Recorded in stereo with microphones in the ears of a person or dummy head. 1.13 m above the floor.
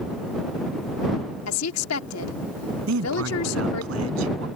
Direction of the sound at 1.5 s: 85° left.